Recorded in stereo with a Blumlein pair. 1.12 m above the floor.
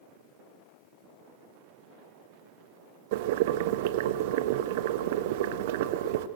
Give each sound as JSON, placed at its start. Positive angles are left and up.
{"t": 3.1, "sound": "boiling", "azimuth_deg": -50, "distance_m": 1.1}